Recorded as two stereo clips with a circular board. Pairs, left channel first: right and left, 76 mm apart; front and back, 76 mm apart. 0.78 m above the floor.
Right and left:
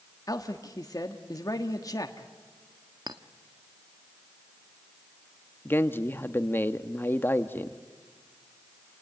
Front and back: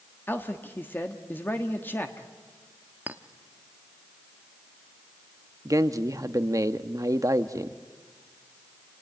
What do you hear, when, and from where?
0.3 s a man speaking: 60° right, 1.3 m
3.1 s a clink: 115° left, 0.9 m
5.7 s a man speaking: 145° right, 1.0 m